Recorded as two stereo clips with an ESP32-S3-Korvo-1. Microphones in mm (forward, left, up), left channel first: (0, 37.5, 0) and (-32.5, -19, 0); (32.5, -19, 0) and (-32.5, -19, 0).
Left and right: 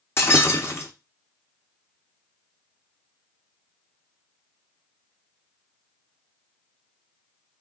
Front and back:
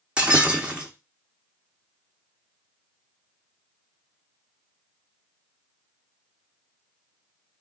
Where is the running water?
I don't hear running water.